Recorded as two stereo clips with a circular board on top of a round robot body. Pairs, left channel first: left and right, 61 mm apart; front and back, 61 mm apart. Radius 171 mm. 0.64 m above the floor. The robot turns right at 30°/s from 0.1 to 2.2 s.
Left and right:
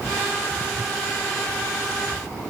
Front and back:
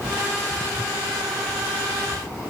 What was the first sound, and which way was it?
Only background noise.